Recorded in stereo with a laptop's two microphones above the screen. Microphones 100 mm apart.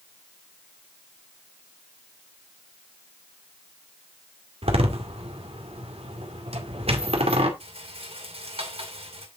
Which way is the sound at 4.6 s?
85° right.